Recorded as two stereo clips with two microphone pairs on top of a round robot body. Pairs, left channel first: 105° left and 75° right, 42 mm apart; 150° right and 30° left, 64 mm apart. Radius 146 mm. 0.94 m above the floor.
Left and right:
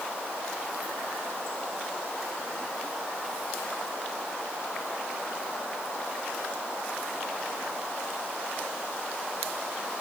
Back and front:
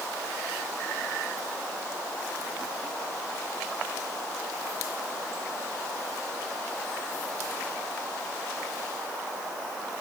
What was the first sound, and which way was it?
Only background noise.